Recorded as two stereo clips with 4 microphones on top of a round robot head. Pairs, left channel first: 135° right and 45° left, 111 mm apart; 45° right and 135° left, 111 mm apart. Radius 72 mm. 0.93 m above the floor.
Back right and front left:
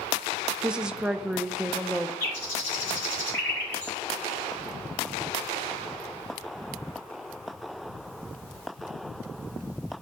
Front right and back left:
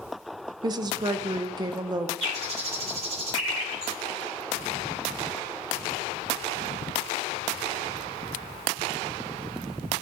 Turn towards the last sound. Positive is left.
turn(degrees=160)